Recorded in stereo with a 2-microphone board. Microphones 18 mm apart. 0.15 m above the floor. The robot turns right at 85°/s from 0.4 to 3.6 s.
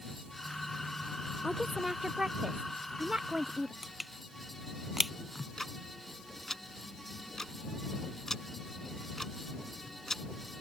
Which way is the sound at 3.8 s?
10° right (ahead or behind).